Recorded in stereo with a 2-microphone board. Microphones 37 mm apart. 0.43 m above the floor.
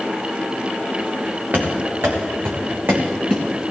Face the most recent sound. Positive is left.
turn(degrees=-55)  # may be behind; listen again after turning